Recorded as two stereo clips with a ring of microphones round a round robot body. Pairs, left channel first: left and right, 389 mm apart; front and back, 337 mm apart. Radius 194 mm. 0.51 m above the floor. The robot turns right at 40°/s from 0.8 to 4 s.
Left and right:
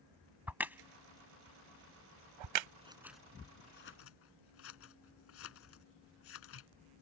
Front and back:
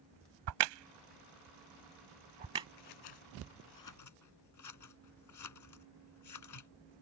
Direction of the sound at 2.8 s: 15° right.